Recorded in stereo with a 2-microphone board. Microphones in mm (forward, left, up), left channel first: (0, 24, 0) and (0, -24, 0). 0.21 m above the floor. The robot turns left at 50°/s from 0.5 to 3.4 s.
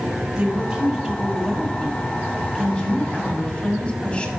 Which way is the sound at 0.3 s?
15° right (ahead or behind).